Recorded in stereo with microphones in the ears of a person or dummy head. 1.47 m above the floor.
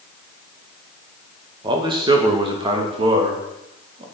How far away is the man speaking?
About 2 m.